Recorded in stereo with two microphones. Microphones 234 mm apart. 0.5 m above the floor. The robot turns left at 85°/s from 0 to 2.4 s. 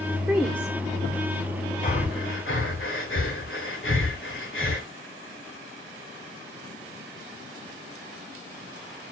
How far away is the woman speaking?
About 0.9 m.